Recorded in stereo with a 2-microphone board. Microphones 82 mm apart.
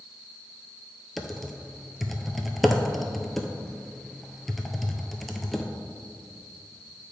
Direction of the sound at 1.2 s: Centre (ahead or behind).